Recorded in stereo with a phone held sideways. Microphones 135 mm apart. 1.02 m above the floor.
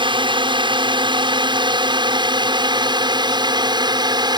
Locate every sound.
0.0 s a drone: 35° right (ahead or behind); by 4.4 s 30° right (ahead or behind)